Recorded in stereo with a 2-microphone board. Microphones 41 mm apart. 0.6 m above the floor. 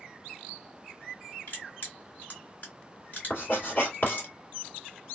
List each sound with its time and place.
1.5 s crushing: 45° left (ahead or behind), 1.8 m
3.3 s writing: 55° left (ahead or behind), 2 m